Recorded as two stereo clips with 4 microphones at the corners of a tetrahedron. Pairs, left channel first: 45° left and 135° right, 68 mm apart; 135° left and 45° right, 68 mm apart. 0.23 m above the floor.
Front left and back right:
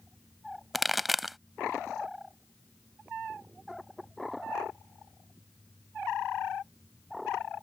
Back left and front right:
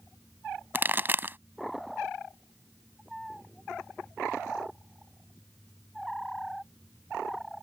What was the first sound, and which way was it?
A pop, 50° right.